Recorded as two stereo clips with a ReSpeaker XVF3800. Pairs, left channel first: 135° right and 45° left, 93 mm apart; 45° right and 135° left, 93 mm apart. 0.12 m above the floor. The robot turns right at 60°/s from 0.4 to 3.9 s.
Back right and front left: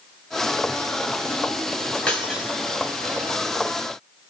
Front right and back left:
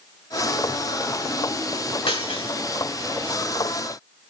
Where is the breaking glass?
55° right, 5 m; by 2.5 s 25° right, 5 m.